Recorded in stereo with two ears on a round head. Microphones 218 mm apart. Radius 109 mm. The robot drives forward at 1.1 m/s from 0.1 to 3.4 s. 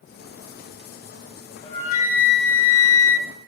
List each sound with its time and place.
1.6 s a flute: 25° left (ahead or behind), 1.5 m; by 3.3 s 50° left (ahead or behind), 0.9 m